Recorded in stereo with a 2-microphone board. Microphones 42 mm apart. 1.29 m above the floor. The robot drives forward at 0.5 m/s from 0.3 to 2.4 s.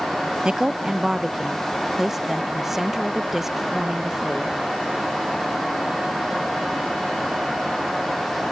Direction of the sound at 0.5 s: 20° right (ahead or behind).